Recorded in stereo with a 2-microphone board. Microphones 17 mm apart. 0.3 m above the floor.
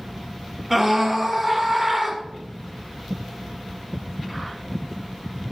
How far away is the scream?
About 2.5 m.